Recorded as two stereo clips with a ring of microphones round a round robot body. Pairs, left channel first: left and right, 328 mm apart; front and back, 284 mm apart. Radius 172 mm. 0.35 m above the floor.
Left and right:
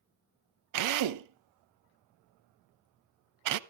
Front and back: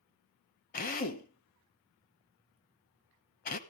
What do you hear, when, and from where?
0.7 s a drill: 60° right, 0.9 m